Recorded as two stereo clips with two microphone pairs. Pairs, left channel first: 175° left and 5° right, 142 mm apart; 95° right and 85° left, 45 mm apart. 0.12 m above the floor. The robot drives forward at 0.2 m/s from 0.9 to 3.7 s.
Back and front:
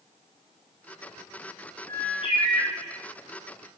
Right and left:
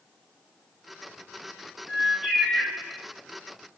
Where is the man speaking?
No man speaking in this recording.